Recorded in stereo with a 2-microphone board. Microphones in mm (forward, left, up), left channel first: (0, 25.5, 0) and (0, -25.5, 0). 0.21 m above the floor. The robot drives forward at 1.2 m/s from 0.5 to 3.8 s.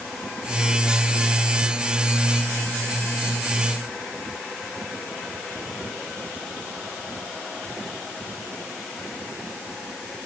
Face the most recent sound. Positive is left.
No sound to turn to.